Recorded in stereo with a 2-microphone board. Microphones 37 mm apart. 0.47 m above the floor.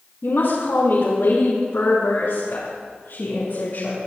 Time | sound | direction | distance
0.2 | a woman speaking | 65° left (ahead or behind) | 4.5 m